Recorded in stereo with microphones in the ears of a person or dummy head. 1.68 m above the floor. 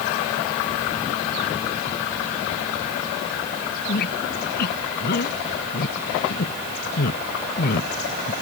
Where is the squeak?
55° left (ahead or behind).